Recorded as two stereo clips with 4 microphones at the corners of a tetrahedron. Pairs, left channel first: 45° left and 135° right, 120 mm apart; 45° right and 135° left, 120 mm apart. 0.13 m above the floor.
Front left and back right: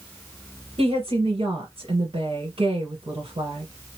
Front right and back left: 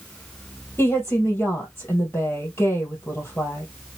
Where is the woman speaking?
115° right, 1.8 m.